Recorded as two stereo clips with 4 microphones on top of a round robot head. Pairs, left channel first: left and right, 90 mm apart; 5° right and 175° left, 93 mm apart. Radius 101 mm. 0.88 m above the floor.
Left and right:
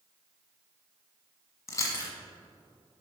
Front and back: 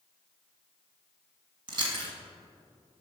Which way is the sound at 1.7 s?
145° left.